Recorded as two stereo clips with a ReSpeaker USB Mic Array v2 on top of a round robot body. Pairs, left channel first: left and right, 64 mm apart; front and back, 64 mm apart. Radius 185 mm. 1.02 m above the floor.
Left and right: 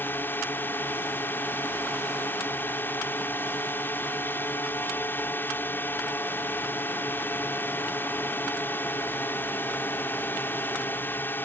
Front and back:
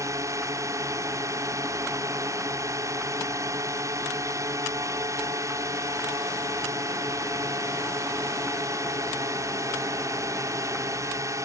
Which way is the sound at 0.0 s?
145° left.